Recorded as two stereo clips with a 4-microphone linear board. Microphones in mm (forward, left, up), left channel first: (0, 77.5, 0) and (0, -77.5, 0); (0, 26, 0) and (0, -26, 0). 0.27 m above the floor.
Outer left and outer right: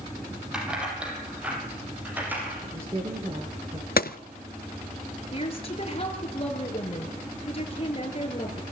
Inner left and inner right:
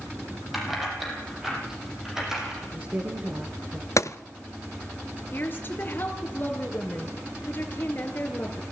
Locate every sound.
0.5 s keys jangling: 5° right (ahead or behind), 7 m; by 2.5 s 10° right (ahead or behind), 8.5 m
2.6 s a woman speaking: 35° right (ahead or behind), 4.5 m
4.0 s a gunshot: 75° left (ahead or behind), 0.7 m
5.3 s a woman speaking: 40° left (ahead or behind), 4.5 m